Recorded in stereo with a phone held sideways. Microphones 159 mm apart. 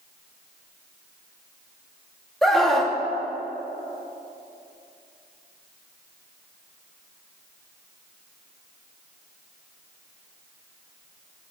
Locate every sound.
2.4 s a scream: centre (ahead or behind), 1.8 m